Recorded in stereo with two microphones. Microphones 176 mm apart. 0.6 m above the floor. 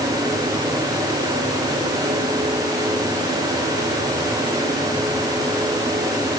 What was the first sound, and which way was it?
Only background noise.